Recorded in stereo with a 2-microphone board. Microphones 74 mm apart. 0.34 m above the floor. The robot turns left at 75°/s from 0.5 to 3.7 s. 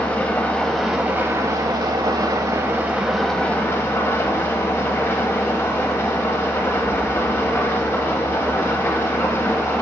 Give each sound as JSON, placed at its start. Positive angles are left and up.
{"t": 0.0, "sound": "an engine running", "azimuth_deg": 25, "distance_m": 0.8}